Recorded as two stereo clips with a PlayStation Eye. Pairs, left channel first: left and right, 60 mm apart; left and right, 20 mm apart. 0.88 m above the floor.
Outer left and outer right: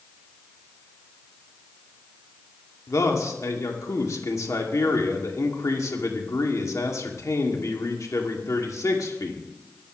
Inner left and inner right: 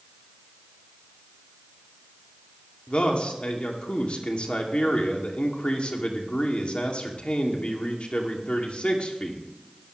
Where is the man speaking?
65° left (ahead or behind), 2.5 m.